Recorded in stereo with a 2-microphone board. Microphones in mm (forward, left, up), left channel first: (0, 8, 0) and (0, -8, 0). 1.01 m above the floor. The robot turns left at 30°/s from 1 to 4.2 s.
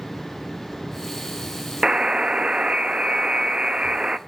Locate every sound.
1.8 s a buzzer: 50° right, 0.7 m; by 4.2 s 120° right, 0.7 m